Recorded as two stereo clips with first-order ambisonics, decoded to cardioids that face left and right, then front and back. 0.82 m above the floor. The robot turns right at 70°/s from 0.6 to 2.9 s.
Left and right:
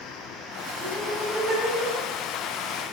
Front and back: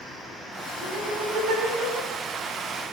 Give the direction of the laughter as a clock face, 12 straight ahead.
7 o'clock.